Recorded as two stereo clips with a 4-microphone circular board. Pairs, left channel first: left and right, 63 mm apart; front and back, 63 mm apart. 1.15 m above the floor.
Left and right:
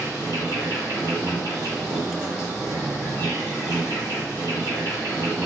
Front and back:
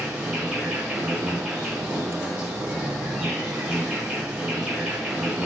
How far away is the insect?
About 1.2 m.